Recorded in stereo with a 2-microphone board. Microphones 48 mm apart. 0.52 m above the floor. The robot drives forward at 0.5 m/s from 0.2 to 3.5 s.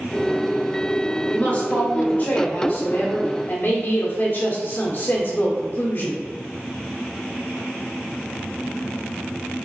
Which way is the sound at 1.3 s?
35° left (ahead or behind).